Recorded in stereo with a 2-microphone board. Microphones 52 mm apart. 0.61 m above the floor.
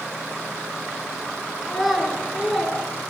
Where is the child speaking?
5° right (ahead or behind), 6.5 m; by 2.8 s 5° left (ahead or behind), 7.5 m.